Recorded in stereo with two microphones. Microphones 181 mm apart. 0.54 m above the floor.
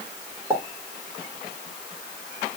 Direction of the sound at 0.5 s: 20° right (ahead or behind).